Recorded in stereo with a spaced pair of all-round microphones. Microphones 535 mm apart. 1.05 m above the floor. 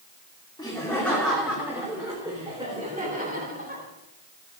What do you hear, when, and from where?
0.6 s laughter: 10° left (ahead or behind), 3 m; by 3.8 s 15° right (ahead or behind), 5.5 m